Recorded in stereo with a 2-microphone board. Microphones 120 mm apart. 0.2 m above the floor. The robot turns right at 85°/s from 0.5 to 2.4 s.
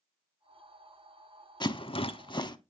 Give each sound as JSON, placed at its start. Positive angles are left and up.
{"t": 1.6, "sound": "a rattle", "side_deg": 40, "distance_m": 0.6}